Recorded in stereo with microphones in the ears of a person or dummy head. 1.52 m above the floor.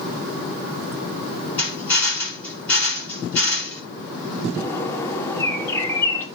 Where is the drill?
10° left (ahead or behind), 9 m.